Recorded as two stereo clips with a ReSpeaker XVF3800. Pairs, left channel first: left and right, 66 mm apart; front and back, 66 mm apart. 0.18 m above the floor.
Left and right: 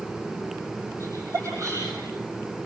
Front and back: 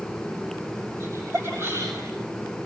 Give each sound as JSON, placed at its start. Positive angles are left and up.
{"t": 1.0, "sound": "laughter", "azimuth_deg": -130, "distance_m": 6.5}